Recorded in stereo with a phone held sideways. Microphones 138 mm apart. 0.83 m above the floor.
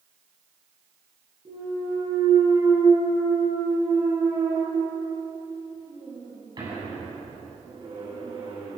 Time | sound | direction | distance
1.4 | a clunk | 35° right (ahead or behind) | 8 m